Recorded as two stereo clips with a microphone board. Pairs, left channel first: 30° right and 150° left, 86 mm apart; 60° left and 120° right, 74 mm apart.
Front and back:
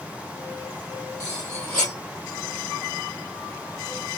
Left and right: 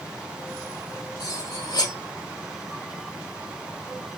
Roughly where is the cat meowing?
No cat meowing in this recording.